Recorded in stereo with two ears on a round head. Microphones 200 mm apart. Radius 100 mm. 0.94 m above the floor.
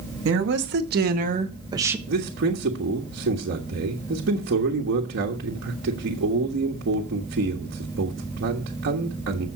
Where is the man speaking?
50° right (ahead or behind), 1.5 m.